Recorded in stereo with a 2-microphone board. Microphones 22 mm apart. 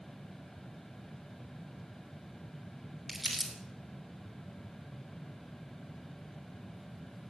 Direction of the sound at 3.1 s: 5° right (ahead or behind).